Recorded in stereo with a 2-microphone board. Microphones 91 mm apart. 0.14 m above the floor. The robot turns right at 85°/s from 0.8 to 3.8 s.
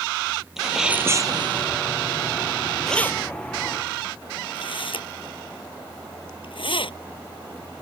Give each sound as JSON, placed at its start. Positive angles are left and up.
{"t": 0.6, "sound": "a sneeze", "azimuth_deg": -175}
{"t": 2.9, "sound": "keys jangling", "side_deg": 5}